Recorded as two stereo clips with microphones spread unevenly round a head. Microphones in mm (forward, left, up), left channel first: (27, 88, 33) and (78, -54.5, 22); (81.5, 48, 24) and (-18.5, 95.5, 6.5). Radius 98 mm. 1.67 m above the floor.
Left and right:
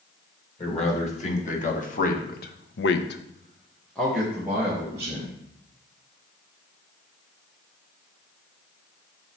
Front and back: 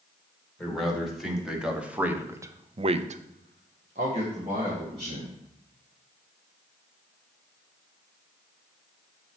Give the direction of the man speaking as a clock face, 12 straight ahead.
10 o'clock.